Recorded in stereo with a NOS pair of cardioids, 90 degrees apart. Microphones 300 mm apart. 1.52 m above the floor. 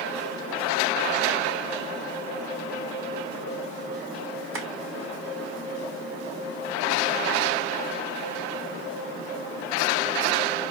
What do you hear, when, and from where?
4.5 s tapping: 50° right, 1.4 m